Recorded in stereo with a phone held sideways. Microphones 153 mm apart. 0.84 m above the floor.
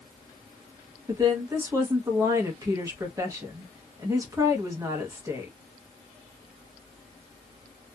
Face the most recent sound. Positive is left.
turn(degrees=-20)  # may be behind; listen again after turning